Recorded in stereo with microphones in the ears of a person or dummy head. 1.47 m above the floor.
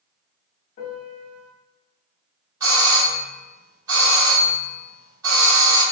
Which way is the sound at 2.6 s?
20° right (ahead or behind).